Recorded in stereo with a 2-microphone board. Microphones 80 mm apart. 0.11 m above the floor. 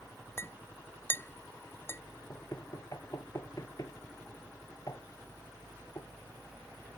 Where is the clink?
30° left (ahead or behind).